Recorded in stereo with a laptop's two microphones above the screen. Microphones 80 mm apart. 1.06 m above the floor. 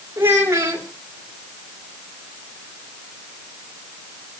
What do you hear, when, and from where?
0.2 s a child speaking: 30° right (ahead or behind), 2.5 m